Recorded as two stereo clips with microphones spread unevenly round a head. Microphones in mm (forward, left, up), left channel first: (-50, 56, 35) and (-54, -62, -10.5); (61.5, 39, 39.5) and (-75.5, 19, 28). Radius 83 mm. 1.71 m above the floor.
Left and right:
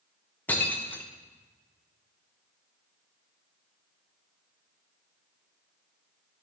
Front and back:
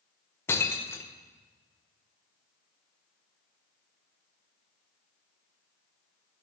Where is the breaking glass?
65° left, 0.9 m.